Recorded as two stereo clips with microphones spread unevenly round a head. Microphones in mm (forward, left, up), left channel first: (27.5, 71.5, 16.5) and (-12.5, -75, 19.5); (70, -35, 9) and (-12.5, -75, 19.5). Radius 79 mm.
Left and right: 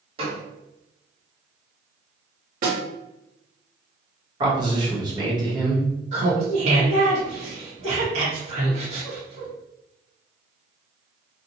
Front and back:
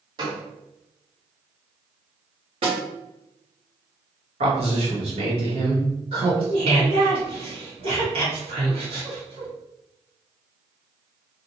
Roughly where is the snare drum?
Behind right.